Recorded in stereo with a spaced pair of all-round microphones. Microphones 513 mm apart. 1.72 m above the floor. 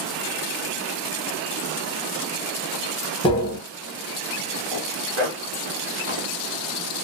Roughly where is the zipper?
Right.